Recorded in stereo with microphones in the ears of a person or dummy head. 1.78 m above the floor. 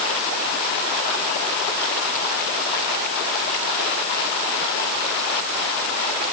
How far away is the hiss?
I don't hear a hiss.